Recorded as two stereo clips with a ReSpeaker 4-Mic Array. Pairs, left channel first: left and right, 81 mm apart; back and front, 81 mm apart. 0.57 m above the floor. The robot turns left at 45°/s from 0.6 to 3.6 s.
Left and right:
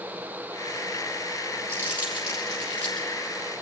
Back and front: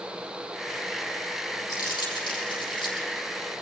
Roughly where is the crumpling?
Behind right.